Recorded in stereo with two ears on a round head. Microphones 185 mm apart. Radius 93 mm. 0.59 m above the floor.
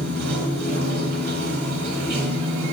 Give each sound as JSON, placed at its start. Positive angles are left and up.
{"t": 0.0, "sound": "running water", "side_deg": -50, "distance_m": 1.2}